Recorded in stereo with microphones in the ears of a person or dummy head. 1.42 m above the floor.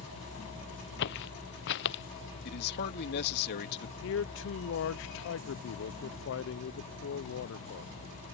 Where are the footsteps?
55° left (ahead or behind).